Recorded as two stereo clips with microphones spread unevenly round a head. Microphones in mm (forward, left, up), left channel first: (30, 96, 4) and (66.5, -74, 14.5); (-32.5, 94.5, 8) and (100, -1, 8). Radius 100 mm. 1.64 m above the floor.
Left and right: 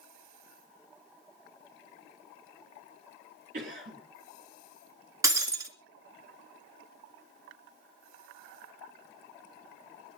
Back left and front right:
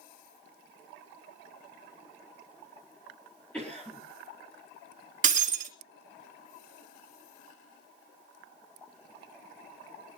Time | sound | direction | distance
3.5 | a cough | 130° right | 5 m
5.2 | breaking glass | 15° right | 2.5 m